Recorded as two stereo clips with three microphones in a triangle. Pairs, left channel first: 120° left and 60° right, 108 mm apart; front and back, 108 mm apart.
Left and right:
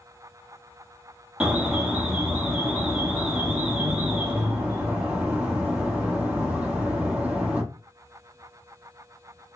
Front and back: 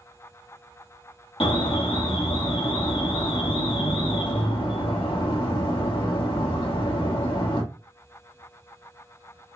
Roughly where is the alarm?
Ahead.